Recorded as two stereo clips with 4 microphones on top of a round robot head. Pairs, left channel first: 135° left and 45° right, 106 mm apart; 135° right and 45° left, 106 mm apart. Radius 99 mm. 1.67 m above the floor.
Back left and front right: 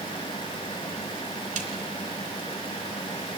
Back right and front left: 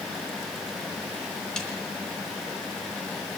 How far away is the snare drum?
About 3.5 m.